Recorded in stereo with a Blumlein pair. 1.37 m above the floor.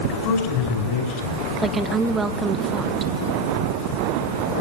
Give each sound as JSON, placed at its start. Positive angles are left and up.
{"t": 0.1, "sound": "a man speaking", "azimuth_deg": 40, "distance_m": 5.0}
{"t": 1.6, "sound": "a woman speaking", "azimuth_deg": -15, "distance_m": 1.5}